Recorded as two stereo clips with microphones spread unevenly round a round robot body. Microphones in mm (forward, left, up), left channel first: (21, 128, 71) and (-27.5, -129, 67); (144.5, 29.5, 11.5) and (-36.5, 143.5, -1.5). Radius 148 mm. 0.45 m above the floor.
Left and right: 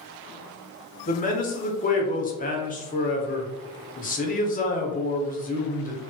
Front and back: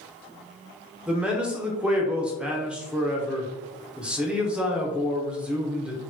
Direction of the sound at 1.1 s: 75° left.